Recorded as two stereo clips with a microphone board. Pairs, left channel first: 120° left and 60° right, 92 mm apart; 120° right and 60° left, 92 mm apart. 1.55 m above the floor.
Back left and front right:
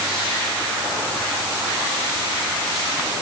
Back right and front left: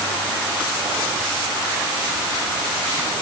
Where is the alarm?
I don't hear an alarm.